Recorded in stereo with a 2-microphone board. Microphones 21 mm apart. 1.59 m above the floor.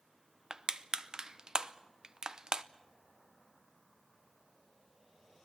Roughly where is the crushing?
Right.